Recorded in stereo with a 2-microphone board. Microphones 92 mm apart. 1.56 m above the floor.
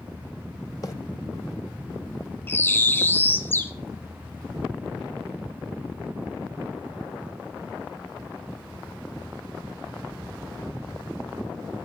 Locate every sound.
0.8 s a bird: 40° left (ahead or behind), 1.6 m
2.5 s a bird: 20° left (ahead or behind), 1.1 m